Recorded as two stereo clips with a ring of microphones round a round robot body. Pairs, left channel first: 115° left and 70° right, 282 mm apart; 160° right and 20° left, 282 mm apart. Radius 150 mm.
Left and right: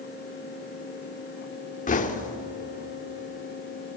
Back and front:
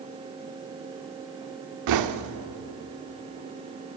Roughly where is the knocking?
Ahead left.